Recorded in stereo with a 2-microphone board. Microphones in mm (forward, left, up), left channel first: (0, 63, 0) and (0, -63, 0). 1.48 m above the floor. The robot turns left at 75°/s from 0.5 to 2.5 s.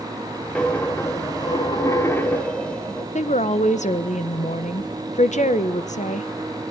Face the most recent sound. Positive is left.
turn(degrees=75)  # may be behind; listen again after turning